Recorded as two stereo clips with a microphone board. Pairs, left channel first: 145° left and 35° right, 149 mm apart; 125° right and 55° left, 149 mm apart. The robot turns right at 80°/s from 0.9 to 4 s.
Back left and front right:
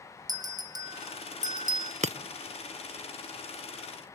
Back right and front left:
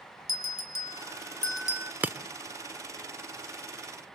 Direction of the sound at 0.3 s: 95° right.